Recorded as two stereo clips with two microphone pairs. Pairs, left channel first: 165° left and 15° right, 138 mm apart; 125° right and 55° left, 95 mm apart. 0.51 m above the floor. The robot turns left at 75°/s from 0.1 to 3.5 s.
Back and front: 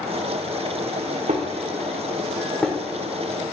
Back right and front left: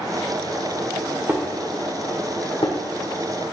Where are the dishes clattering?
10° right, 1.1 m; by 2.8 s 120° right, 1.1 m.